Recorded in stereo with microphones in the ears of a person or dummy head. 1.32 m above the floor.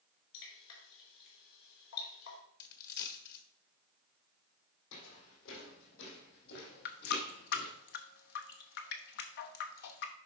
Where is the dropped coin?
55° left (ahead or behind), 1.4 m.